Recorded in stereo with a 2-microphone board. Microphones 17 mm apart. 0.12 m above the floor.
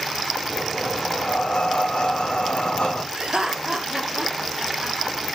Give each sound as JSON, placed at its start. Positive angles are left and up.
{"t": 0.5, "sound": "breathing", "side_deg": 70, "distance_m": 1.5}
{"t": 3.1, "sound": "laughter", "side_deg": -55, "distance_m": 1.9}